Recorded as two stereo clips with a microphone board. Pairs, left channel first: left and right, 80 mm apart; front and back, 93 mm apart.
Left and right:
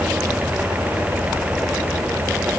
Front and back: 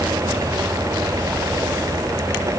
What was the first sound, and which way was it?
Only background noise.